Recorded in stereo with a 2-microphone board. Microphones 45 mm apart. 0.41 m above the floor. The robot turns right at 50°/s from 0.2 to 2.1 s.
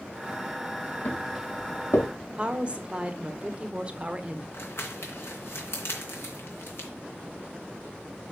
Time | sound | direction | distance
1.1 | footsteps | 50° left (ahead or behind) | 4 m
2.4 | a woman speaking | 25° right (ahead or behind) | 1.0 m
4.5 | crumpling | 65° left (ahead or behind) | 2.5 m